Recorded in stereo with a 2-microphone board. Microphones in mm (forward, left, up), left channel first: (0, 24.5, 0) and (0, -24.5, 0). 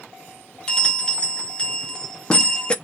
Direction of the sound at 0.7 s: 20° left (ahead or behind).